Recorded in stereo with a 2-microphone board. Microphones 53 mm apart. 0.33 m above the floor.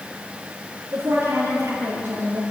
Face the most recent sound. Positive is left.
turn(degrees=-50)  # may be behind; listen again after turning